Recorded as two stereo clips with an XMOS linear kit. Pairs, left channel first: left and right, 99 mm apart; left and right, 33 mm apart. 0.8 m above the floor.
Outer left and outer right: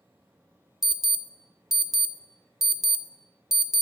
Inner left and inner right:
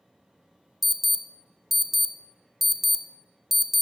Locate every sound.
0.8 s an alarm: 5° right (ahead or behind), 0.5 m